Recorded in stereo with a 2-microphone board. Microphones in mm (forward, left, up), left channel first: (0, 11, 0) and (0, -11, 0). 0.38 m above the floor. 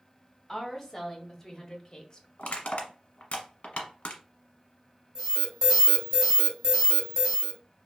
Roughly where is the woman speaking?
Centre.